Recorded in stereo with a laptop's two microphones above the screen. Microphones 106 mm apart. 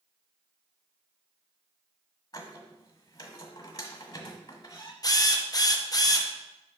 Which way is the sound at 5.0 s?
35° left (ahead or behind).